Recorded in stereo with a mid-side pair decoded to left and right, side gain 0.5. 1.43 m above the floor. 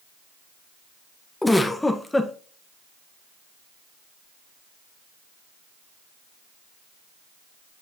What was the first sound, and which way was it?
A giggle, 15° left.